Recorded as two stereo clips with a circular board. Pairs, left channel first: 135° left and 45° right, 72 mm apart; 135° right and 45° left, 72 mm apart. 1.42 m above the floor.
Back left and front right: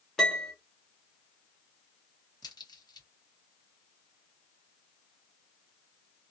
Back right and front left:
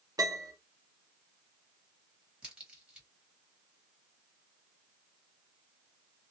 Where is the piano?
50° left, 1.2 m.